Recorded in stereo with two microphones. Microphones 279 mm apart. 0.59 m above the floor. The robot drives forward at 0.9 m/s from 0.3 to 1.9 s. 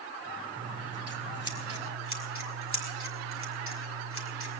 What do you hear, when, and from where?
0.6 s scissors: 65° right (ahead or behind), 2.0 m; by 4.6 s 50° right (ahead or behind), 2.5 m